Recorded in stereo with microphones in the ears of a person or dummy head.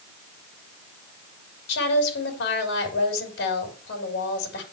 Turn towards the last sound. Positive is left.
turn(degrees=70)  # may be behind; listen again after turning